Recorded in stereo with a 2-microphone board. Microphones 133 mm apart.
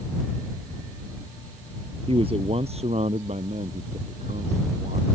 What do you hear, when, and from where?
2.1 s a man speaking: 45° right (ahead or behind); by 5.0 s 60° right (ahead or behind)